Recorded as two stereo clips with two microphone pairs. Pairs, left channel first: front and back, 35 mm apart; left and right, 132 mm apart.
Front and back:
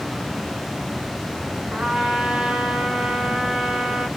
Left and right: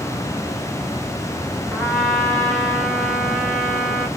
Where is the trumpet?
165° left, 0.9 m.